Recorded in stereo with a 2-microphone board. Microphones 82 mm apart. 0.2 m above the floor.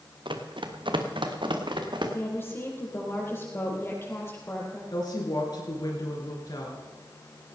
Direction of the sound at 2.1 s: 30° left (ahead or behind).